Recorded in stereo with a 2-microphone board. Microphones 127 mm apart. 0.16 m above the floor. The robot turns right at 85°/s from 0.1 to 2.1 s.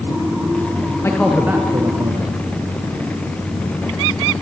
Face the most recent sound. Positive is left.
turn(degrees=-115)